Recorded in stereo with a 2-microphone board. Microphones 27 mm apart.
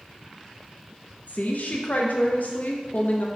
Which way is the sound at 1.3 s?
70° left (ahead or behind).